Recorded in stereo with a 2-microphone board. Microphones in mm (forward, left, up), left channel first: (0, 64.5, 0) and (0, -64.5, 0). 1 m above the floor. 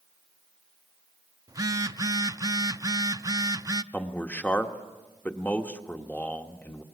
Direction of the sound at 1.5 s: 25° right (ahead or behind).